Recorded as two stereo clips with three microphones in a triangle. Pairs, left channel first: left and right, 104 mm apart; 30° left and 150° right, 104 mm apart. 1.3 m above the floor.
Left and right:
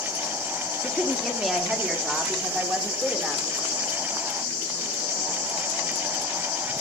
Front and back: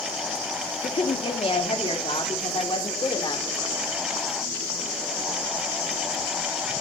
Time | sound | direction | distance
0.8 | a woman speaking | 5° left | 3 m